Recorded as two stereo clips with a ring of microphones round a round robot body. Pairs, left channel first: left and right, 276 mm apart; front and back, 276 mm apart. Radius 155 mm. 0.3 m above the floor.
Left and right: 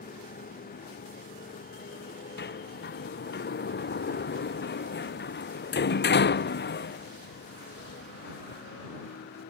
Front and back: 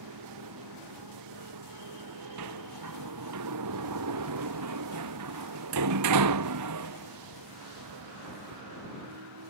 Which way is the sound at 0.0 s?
150° left.